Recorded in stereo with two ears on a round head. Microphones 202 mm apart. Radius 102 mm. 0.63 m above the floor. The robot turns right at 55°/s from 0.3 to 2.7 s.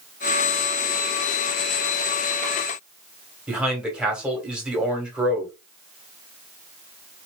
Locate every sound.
3.5 s a man speaking: 5° right (ahead or behind), 1.7 m